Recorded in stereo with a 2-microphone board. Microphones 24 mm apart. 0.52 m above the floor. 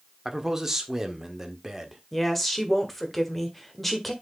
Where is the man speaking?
15° right (ahead or behind), 1.4 m.